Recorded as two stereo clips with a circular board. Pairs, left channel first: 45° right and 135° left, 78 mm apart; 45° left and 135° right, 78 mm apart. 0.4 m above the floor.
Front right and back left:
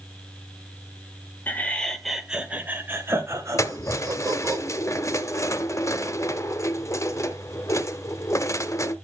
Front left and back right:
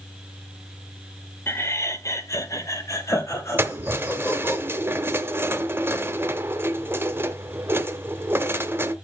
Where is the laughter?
5° left, 1.2 m; by 4.6 s 100° left, 2.5 m.